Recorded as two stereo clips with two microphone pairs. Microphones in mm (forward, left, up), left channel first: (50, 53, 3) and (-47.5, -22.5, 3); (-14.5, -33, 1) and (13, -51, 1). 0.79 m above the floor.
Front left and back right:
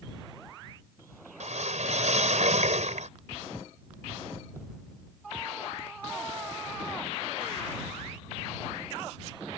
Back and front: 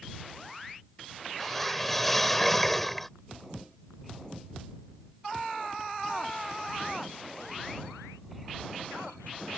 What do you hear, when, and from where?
1.4 s a whoosh: 130° right